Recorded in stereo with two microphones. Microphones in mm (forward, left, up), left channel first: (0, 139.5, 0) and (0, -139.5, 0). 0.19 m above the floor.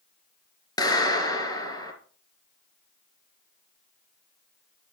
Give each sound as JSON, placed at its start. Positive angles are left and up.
{"t": 0.8, "sound": "a clap", "side_deg": 15, "distance_m": 2.5}